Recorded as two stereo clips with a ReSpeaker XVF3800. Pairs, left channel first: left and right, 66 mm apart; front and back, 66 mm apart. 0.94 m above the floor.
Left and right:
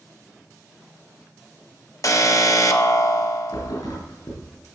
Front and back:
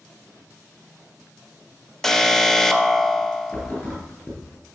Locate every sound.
2.0 s an alarm: 80° left, 1.1 m
3.5 s a thud: 70° left, 5.5 m